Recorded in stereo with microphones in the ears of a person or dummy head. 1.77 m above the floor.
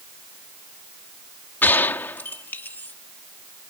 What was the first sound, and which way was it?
A gunshot, 15° left (ahead or behind).